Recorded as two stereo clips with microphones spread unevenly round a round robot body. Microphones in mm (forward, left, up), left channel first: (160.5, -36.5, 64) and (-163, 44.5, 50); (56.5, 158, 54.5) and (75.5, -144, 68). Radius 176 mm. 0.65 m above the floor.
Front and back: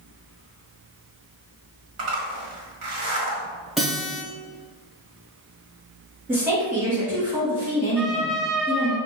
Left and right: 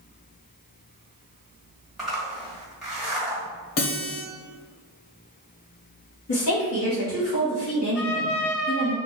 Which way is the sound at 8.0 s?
80° left.